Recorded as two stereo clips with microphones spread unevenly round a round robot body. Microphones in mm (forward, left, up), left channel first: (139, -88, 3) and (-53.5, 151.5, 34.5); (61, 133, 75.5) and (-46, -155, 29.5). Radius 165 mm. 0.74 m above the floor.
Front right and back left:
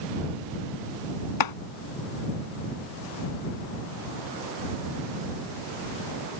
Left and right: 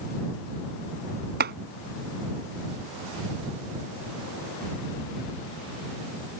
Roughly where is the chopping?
Ahead right.